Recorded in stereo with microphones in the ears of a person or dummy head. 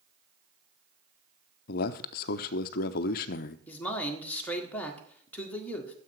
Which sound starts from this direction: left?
A man speaking, at 1.7 s.